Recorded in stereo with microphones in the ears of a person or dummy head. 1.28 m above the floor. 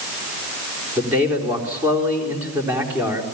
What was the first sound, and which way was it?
A man speaking, 10° right (ahead or behind).